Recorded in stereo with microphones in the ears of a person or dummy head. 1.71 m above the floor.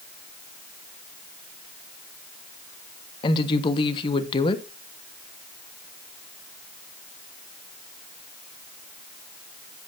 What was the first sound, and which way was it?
A woman speaking, 30° left (ahead or behind).